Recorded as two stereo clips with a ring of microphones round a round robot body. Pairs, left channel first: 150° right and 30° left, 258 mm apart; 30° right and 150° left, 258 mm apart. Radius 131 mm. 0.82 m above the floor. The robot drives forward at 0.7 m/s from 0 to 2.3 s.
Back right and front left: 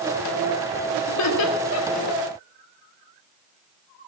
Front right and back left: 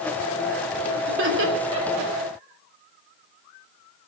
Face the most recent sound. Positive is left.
turn(degrees=-170)